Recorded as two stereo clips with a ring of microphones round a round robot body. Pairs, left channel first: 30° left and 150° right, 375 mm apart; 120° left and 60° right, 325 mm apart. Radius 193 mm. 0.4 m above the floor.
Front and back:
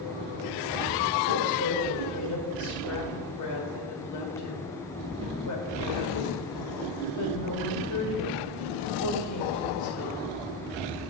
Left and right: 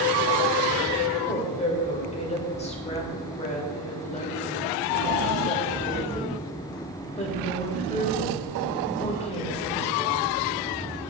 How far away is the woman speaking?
About 2 m.